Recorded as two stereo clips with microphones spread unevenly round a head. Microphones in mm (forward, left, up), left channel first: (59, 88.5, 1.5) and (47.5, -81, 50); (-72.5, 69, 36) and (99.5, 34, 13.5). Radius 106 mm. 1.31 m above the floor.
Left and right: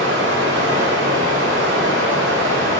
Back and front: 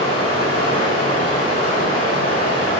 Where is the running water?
125° right, 1.7 m.